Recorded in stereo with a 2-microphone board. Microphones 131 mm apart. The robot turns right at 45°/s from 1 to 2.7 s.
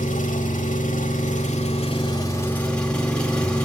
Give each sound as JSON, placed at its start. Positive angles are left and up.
{"t": 0.0, "sound": "an engine running", "azimuth_deg": 95, "distance_m": 1.7}